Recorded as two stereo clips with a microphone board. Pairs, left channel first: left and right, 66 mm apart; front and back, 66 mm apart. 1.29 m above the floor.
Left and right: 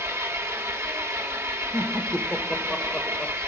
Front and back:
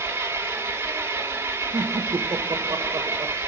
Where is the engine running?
130° right, 1.7 m.